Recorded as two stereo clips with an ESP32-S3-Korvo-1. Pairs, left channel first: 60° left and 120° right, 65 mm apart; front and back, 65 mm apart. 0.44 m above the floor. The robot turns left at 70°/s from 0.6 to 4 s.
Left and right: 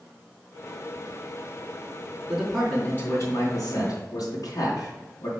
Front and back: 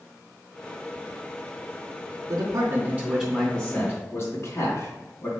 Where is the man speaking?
170° left, 3.5 m; by 5.3 s 50° left, 3.5 m.